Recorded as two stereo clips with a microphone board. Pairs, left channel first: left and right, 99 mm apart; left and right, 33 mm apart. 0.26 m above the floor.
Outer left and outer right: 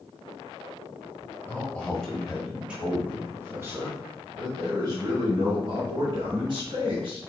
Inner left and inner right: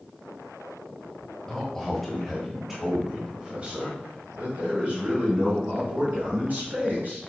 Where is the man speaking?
20° left (ahead or behind), 1.6 m; by 7.2 s 60° right (ahead or behind), 3.5 m.